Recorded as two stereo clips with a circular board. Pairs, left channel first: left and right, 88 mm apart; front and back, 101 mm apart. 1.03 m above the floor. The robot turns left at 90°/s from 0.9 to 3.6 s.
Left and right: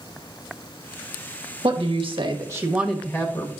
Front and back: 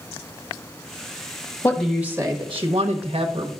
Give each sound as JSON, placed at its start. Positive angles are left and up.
{"t": 1.6, "sound": "a woman speaking", "azimuth_deg": -70, "distance_m": 1.1}